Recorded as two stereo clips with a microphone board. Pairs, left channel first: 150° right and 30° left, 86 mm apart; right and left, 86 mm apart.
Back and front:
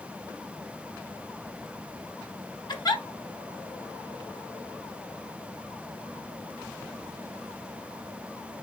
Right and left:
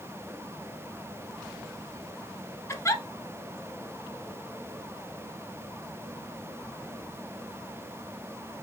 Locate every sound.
2.7 s a giggle: 140° right, 1.2 m